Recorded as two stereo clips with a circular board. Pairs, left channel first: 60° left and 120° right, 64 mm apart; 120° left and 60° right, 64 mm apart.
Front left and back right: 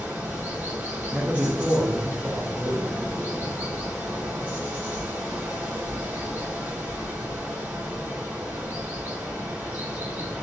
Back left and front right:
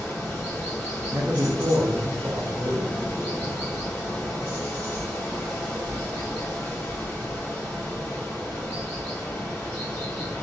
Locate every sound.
0.0 s running water: 175° left, 1.6 m
1.1 s a man speaking: 60° right, 0.6 m